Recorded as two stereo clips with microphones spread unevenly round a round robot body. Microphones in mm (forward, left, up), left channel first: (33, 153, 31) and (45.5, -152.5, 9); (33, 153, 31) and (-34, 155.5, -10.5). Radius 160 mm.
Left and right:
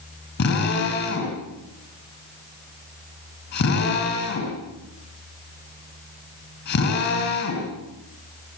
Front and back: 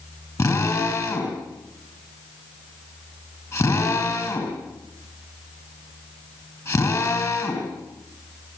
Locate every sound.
0.4 s a drill: 40° left, 5.5 m